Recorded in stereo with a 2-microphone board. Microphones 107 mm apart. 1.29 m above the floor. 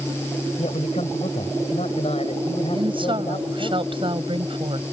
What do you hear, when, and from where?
0.6 s a man speaking: 85° left; by 3.7 s 50° left (ahead or behind)
2.7 s a woman speaking: 50° right (ahead or behind)